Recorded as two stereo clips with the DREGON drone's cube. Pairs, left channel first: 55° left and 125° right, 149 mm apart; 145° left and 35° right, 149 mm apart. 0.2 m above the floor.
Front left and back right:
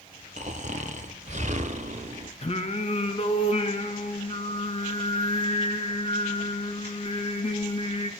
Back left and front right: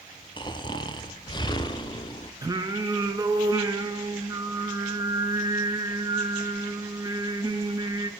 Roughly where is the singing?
Ahead left.